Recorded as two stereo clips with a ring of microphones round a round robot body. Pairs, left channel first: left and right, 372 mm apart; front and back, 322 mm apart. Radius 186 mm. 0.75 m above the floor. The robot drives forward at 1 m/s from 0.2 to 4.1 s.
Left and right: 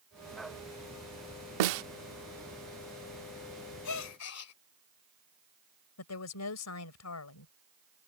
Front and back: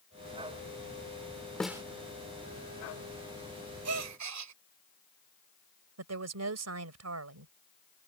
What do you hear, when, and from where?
1.6 s a snare drum: 85° right; by 1.8 s 100° right
3.9 s a gasp: 135° left; by 4.5 s 140° left
6.0 s a woman speaking: 140° left